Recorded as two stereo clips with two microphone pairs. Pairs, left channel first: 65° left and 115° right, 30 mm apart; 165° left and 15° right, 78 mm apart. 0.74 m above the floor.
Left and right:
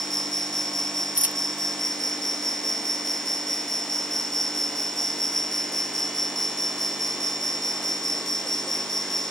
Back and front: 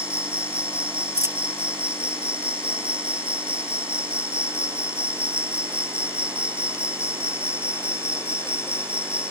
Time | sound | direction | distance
0.0 | an insect | 15° right | ?
1.1 | a dropped coin | 70° right | ?